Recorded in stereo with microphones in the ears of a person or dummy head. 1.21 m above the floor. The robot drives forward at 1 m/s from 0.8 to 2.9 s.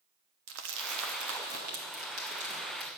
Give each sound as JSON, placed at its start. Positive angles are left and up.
{"t": 0.5, "sound": "crumpling", "side_deg": -75, "distance_m": 1.1}